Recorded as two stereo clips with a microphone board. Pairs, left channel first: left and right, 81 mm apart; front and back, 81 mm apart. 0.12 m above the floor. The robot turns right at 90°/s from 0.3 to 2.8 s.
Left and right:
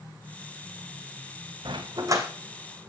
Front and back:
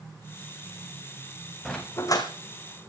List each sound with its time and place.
1.6 s a dog barking: 85° right, 2.5 m; by 2.3 s 30° right, 2.5 m